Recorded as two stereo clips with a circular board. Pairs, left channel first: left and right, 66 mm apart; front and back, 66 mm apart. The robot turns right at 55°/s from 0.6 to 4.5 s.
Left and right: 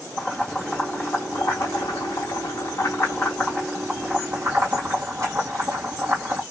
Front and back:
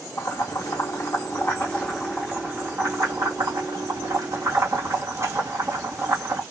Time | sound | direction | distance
0.2 | boiling | 15° left | 2 m